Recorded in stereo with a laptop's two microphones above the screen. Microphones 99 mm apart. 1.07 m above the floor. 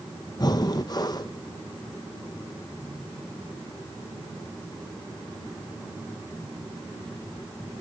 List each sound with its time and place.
0.4 s breathing: 40° left (ahead or behind), 0.7 m